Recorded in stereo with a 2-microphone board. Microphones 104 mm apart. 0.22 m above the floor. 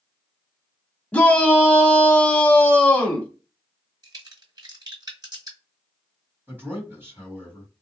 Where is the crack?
40° right (ahead or behind), 2 m.